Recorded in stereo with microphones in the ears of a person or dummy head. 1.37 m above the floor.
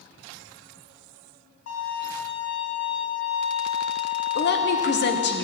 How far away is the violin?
About 4 m.